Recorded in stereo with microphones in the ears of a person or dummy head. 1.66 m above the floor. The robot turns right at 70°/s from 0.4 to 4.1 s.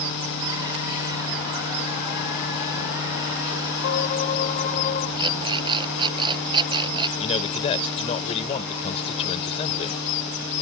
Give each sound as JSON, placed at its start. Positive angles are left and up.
{"t": 3.8, "sound": "a violin", "side_deg": 60}
{"t": 5.2, "sound": "an alarm clock", "side_deg": -30}
{"t": 7.2, "sound": "a man speaking", "side_deg": 25}